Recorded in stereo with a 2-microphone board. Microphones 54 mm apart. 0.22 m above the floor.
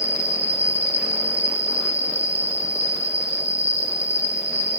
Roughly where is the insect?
Right.